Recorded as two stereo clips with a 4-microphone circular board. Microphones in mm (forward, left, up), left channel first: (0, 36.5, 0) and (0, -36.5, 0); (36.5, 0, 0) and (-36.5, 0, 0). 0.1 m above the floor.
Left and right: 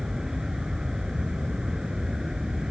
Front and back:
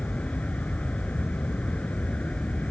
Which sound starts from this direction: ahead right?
An aircraft, at 0.0 s.